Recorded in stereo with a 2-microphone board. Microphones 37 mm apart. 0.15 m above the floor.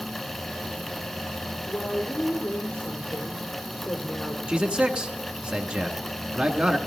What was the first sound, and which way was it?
A woman speaking, 60° left (ahead or behind).